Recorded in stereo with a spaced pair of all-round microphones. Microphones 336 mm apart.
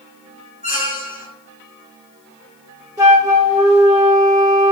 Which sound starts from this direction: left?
A squeak, at 0.6 s.